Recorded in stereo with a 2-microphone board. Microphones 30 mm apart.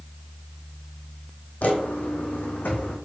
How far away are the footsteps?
About 1.7 m.